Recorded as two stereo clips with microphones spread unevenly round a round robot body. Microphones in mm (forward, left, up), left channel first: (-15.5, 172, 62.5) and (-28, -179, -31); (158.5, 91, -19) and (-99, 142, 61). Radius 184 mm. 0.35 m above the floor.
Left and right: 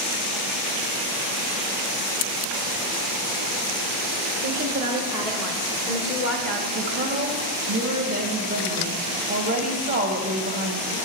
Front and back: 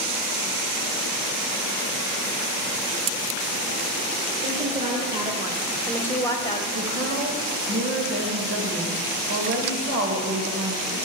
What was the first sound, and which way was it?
A woman speaking, 125° right.